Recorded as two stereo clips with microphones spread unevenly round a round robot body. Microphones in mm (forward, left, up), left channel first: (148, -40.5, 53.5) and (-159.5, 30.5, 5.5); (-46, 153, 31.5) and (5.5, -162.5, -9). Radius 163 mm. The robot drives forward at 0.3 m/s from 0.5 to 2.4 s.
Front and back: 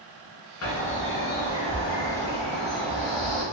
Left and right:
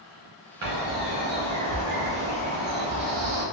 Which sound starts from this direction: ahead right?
A bird, at 0.6 s.